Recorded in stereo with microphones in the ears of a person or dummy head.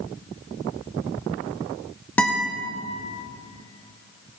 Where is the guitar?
10° left (ahead or behind), 1.4 m.